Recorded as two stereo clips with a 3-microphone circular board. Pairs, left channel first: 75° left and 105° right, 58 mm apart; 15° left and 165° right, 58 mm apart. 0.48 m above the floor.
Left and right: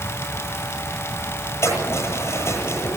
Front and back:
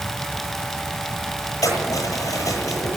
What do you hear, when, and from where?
1.6 s keys jangling: 40° left, 9.5 m